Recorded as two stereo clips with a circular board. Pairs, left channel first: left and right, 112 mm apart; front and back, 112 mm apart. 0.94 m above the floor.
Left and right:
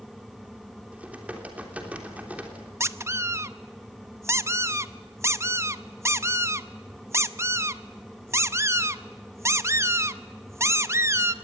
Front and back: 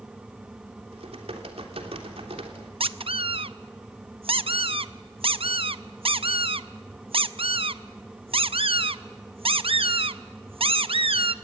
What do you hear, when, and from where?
0.9 s typing on a keyboard: 165° right, 3 m
2.8 s a squeak: 150° right, 0.7 m